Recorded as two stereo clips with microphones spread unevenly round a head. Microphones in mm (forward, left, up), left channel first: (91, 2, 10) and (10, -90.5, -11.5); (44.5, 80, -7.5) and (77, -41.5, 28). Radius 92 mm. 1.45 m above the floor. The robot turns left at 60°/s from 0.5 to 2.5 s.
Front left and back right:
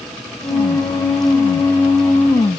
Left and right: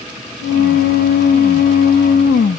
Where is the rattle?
I don't hear a rattle.